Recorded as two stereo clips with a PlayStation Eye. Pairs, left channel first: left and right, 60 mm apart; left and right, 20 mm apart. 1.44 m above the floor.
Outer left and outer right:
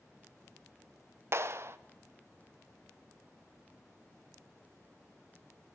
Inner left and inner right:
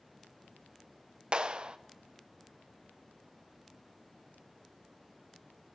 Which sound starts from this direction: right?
A clap, at 1.3 s.